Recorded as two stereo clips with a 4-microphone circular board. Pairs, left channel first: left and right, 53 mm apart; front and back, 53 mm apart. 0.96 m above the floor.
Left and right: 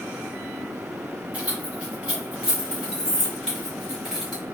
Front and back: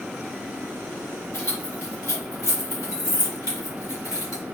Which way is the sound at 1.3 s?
25° right.